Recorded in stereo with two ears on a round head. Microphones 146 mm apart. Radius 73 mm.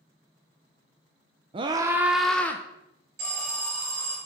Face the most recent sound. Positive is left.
turn(degrees=-65)  # may be behind; listen again after turning